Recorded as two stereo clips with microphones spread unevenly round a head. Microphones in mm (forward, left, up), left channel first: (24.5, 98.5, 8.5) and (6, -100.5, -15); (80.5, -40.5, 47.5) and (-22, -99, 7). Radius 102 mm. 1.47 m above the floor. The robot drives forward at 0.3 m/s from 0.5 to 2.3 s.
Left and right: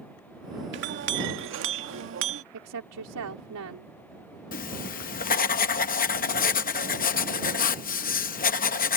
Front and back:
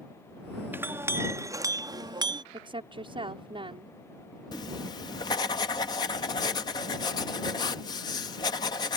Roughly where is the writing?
Ahead left.